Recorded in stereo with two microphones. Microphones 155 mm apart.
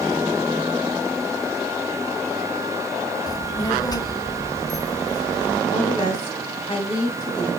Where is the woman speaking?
30° left (ahead or behind), 1.2 m.